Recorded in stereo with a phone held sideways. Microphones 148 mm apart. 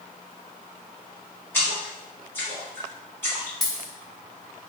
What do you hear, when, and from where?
1.5 s a splash: 15° left (ahead or behind), 1.5 m
3.6 s a dropped coin: centre (ahead or behind), 0.7 m